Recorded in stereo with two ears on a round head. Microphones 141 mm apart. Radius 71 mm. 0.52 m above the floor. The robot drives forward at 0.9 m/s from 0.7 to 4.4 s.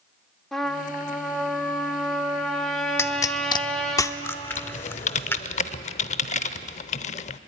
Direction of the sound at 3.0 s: 15° left (ahead or behind).